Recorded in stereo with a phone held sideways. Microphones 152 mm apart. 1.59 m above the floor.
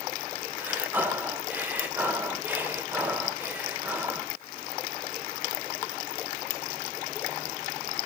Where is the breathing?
10° right (ahead or behind), 1.2 m.